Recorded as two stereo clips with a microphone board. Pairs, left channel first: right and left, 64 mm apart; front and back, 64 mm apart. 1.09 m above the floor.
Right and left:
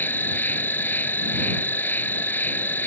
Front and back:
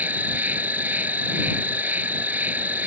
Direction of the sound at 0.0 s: 130° right.